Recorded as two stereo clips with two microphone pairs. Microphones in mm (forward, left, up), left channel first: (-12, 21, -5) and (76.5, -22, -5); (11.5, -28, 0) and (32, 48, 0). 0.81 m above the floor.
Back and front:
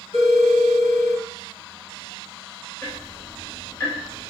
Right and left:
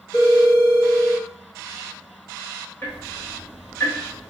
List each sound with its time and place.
0.1 s a phone ringing: 175° left, 2.5 m
2.8 s ticking: 155° right, 1.2 m